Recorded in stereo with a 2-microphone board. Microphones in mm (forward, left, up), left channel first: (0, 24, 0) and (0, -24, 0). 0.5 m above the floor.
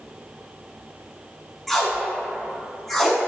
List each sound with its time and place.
1.7 s tape being pulled: 5° left (ahead or behind), 0.7 m